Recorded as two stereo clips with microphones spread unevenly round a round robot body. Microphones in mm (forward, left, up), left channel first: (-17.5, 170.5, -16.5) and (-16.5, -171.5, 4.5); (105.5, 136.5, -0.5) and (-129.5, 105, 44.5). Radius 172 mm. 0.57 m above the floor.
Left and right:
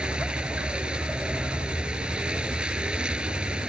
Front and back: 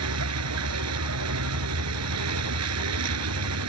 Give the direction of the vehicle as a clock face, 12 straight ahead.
6 o'clock.